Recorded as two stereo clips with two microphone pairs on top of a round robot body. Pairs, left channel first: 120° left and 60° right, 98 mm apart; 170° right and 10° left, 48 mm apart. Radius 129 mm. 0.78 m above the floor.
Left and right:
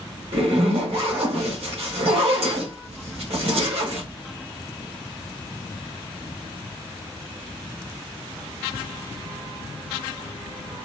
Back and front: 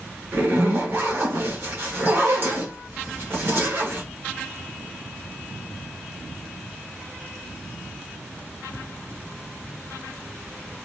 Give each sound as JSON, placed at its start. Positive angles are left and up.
{"t": 0.3, "sound": "a zipper", "azimuth_deg": -40, "distance_m": 1.4}